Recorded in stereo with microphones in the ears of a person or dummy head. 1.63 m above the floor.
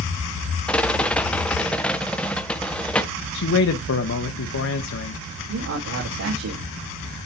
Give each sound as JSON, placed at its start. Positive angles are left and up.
{"t": 0.7, "sound": "a rattle", "side_deg": 10, "distance_m": 0.8}
{"t": 3.3, "sound": "a man speaking", "side_deg": 65, "distance_m": 1.0}
{"t": 5.5, "sound": "a man speaking", "side_deg": -80, "distance_m": 3.5}